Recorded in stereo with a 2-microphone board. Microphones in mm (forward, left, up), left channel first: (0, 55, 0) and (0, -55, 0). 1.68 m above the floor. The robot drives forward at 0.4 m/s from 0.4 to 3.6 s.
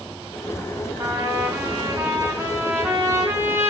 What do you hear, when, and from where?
1.0 s a trumpet: 30° right (ahead or behind), 3.5 m; by 3.7 s 20° right (ahead or behind), 4 m